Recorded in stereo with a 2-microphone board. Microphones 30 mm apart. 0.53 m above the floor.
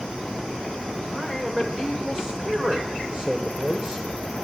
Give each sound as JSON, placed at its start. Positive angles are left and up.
{"t": 1.1, "sound": "a man speaking", "side_deg": -15, "distance_m": 1.5}